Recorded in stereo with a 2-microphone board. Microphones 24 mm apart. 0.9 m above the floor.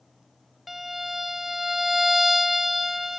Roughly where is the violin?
Centre.